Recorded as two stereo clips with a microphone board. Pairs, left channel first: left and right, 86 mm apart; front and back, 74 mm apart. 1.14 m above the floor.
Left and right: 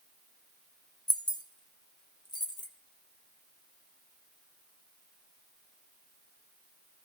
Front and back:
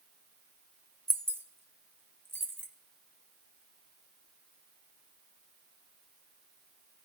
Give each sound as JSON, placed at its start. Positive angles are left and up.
{"t": 1.1, "sound": "keys jangling", "azimuth_deg": 120, "distance_m": 0.7}